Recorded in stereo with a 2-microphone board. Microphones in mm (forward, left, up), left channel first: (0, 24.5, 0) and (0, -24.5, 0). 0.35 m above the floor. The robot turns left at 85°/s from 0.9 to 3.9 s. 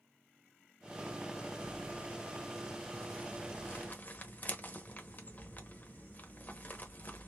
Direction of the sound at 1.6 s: 40° right (ahead or behind).